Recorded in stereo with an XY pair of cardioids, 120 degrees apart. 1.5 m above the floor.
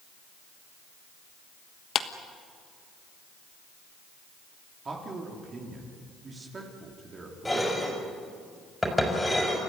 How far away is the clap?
About 1.3 m.